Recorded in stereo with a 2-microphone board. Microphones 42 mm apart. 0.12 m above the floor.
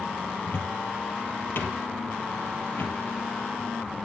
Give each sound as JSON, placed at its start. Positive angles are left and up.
{"t": 0.4, "sound": "a cupboard door", "side_deg": 60, "distance_m": 1.9}